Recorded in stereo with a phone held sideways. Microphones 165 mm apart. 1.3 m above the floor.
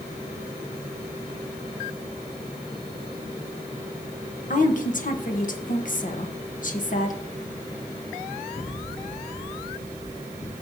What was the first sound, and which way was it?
A woman speaking, 55° left (ahead or behind).